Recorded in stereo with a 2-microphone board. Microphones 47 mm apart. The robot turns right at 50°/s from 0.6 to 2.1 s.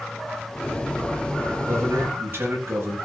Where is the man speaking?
75° right (ahead or behind), 9.5 m; by 3.0 s 50° right (ahead or behind), 9.5 m.